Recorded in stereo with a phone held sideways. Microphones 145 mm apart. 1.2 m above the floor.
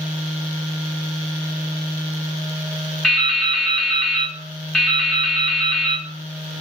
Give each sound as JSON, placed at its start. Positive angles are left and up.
{"t": 3.0, "sound": "dripping", "side_deg": 5, "distance_m": 0.7}